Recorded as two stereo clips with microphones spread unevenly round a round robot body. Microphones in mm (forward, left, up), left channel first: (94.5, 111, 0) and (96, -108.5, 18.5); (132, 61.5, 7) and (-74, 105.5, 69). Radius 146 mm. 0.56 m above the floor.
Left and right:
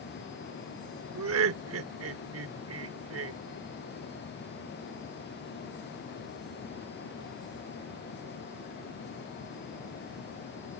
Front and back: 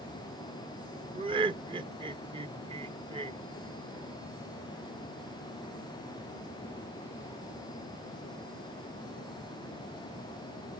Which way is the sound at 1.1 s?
115° right.